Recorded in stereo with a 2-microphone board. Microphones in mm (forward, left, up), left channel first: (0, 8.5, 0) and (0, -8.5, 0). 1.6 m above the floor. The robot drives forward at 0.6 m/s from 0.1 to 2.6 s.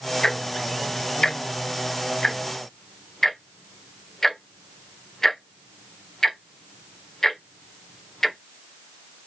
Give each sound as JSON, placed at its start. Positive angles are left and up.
{"t": 0.2, "sound": "ticking", "side_deg": 35, "distance_m": 0.9}